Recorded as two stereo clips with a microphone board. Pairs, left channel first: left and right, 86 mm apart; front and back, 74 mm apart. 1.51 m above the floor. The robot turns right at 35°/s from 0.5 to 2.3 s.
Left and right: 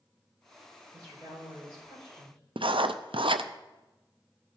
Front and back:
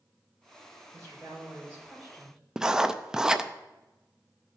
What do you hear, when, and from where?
0.9 s a woman speaking: 140° right, 6 m; by 2.4 s 90° right, 6 m
2.6 s writing: 100° right, 0.5 m